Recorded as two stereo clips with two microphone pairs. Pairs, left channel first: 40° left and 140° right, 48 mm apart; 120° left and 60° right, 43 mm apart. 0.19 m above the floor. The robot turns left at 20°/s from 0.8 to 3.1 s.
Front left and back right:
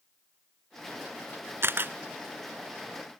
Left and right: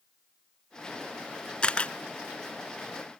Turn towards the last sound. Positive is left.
turn(degrees=155)